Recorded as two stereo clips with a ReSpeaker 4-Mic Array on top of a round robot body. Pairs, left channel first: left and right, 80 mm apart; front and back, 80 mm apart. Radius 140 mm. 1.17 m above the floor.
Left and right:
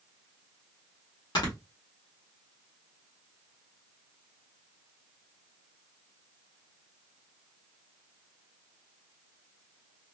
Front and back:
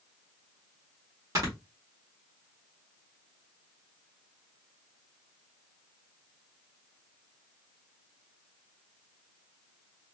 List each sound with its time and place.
1.4 s snoring: 130° left, 1.6 m